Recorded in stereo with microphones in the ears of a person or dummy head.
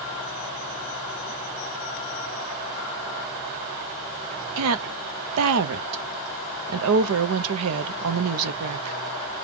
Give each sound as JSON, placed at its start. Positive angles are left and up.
{"t": 4.6, "sound": "a woman speaking", "side_deg": -85, "distance_m": 0.9}